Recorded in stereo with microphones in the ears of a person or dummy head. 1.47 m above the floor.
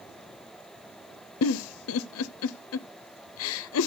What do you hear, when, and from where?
1.4 s a giggle: 75° left (ahead or behind), 0.5 m